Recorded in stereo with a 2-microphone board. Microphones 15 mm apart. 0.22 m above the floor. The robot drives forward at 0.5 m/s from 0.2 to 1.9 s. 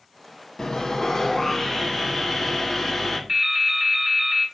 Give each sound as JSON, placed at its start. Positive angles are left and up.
{"t": 0.6, "sound": "sawing", "side_deg": 45, "distance_m": 0.5}
{"t": 3.3, "sound": "dripping", "side_deg": -20, "distance_m": 0.7}